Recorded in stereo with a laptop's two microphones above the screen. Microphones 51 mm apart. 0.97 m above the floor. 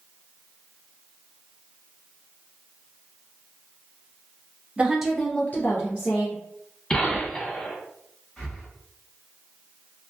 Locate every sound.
4.8 s a woman speaking: 25° right (ahead or behind), 0.6 m; by 6.4 s 60° left (ahead or behind), 1.0 m
6.9 s a gunshot: 15° left (ahead or behind), 1.1 m
8.4 s breathing: 15° left (ahead or behind), 1.1 m